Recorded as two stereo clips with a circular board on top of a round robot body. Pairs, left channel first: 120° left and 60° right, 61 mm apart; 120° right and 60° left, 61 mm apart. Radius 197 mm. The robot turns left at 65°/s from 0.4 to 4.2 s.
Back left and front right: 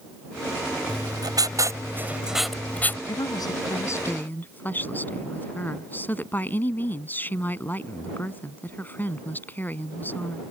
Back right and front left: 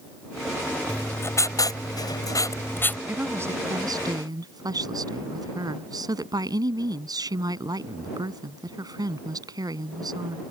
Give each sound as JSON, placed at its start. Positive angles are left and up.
{"t": 0.9, "sound": "writing", "azimuth_deg": -50}
{"t": 3.1, "sound": "a woman speaking", "azimuth_deg": 130}